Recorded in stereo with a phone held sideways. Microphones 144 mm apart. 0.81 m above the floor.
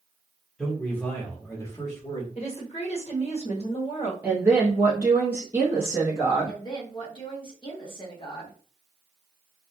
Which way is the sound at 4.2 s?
15° right (ahead or behind).